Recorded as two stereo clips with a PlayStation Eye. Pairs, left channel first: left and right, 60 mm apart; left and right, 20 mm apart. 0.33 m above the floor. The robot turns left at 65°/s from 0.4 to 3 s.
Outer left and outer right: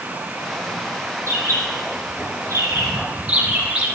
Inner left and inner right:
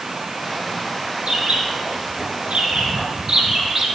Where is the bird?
45° right (ahead or behind), 2 m; by 4.0 s 20° right (ahead or behind), 2 m.